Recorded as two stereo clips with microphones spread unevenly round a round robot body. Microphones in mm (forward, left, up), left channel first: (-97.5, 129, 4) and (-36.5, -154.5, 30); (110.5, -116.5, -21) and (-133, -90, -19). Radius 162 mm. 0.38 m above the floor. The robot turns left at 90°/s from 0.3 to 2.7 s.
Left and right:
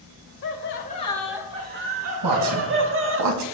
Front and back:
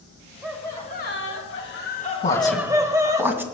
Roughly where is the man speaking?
Ahead right.